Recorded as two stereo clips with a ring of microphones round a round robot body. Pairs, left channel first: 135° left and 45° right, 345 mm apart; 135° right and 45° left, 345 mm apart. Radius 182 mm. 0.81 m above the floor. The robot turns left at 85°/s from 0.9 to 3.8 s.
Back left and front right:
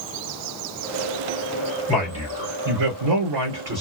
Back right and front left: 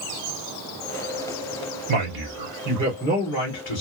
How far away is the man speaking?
About 2.5 m.